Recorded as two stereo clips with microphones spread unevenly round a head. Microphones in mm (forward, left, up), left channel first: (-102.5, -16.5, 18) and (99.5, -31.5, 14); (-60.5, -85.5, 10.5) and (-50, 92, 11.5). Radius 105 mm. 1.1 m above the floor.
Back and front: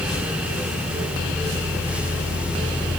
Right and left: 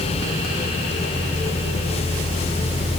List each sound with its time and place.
Only background noise.